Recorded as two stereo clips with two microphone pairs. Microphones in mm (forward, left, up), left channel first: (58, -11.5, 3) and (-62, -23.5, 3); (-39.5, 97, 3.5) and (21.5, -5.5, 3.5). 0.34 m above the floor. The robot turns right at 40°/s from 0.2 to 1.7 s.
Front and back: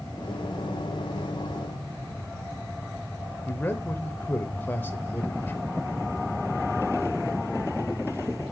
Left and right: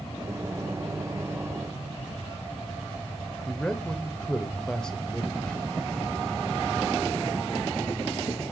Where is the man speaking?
55° left, 0.8 m.